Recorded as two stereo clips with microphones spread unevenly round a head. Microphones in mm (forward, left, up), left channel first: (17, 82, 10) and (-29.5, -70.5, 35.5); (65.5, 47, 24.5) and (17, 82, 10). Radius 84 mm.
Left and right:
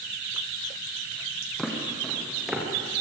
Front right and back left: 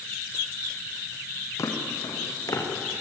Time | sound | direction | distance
1.6 | footsteps | 15° right | 4.5 m